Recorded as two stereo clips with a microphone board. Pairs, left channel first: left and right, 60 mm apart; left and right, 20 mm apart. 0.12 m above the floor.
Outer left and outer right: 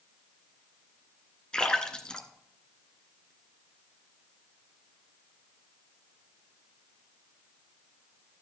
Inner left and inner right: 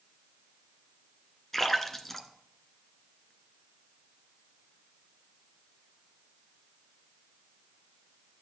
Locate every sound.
1.5 s a splash: 15° left (ahead or behind), 1.5 m